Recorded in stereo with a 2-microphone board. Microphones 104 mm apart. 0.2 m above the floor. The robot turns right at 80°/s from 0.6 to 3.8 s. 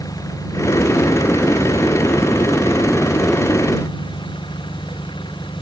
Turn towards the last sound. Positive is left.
turn(degrees=45)